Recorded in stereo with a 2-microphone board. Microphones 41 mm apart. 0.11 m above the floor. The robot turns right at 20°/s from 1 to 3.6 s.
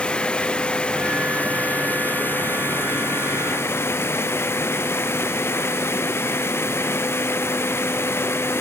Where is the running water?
25° left, 0.7 m; by 8.6 s 75° left, 0.7 m.